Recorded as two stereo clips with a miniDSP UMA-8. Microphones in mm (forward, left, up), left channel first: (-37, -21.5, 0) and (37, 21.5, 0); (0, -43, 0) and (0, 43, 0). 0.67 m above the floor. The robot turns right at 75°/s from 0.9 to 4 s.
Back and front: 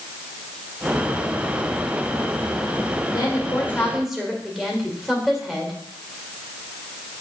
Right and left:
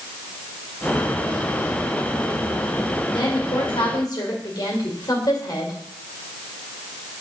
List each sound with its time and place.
3.1 s a woman speaking: 120° right, 2 m; by 5.7 s 55° right, 2 m